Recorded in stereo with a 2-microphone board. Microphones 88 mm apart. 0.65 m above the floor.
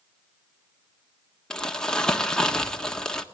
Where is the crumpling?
10° left (ahead or behind), 1.5 m.